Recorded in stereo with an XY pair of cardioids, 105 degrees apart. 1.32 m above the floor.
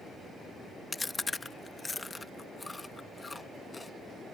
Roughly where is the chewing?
Ahead.